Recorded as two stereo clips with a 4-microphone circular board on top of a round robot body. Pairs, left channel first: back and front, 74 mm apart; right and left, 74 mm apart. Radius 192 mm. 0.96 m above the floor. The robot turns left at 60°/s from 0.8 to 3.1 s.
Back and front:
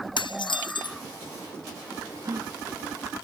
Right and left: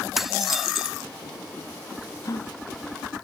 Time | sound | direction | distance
0.2 | dishes clattering | straight behind | ?
2.2 | a gasp | 40° right | ?